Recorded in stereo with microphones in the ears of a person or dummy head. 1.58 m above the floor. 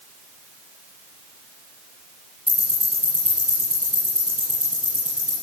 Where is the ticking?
25° right (ahead or behind), 5 m.